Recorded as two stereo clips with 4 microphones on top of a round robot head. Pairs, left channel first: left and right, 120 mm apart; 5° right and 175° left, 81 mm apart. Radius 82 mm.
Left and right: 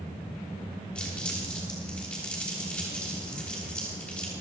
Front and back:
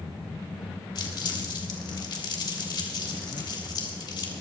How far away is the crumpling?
About 3 m.